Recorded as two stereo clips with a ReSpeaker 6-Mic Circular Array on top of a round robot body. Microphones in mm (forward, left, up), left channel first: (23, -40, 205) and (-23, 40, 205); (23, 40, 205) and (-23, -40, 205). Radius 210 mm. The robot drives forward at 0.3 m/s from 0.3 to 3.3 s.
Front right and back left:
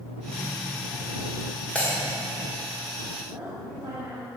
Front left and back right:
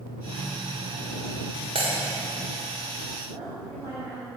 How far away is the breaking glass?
About 1.7 m.